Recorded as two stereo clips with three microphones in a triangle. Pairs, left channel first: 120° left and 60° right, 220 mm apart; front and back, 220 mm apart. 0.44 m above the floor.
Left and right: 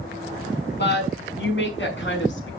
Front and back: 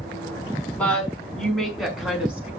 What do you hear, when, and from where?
0.8 s a woman speaking: 85° left, 5 m; by 2.5 s 95° left, 5 m